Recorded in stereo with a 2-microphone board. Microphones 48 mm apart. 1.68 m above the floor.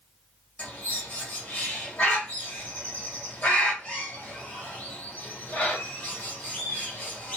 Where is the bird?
30° left (ahead or behind), 1.6 m.